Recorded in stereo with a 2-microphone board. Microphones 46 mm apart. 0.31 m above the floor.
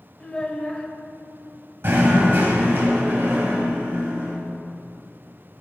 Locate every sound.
0.2 s a child speaking: 20° left (ahead or behind), 0.6 m
1.8 s knocking: 55° right (ahead or behind), 1.1 m